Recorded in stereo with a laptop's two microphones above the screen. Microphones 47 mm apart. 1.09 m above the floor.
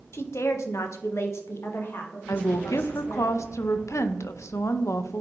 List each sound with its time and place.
0.1 s a woman speaking: 60° left (ahead or behind), 0.8 m; by 3.3 s 40° left (ahead or behind), 1.9 m
2.3 s a woman speaking: 85° left, 0.6 m